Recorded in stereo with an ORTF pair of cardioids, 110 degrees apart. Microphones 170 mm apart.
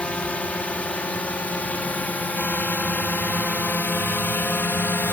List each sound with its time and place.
0.0 s a drone: 5° left; by 5.1 s 10° left